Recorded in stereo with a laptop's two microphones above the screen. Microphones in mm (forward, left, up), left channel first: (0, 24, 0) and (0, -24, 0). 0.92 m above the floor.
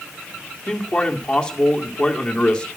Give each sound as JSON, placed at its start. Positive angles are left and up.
{"t": 0.7, "sound": "a man speaking", "side_deg": 20, "distance_m": 1.9}